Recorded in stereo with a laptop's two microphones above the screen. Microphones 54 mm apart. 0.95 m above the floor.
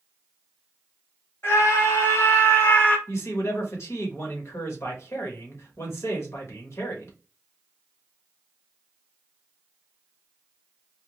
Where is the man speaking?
65° left (ahead or behind), 1.3 m.